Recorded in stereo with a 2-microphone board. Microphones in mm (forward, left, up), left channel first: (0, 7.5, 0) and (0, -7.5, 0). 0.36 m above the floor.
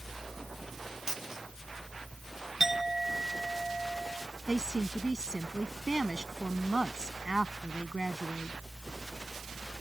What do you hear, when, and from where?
1.1 s a dropped coin: 40° right (ahead or behind)
2.6 s a clink: 20° right (ahead or behind)
4.5 s a woman speaking: 55° right (ahead or behind)